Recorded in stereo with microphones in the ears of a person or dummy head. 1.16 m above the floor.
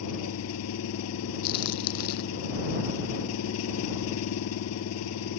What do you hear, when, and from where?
0.0 s an engine running: 85° left
1.4 s a crack: 60° left (ahead or behind)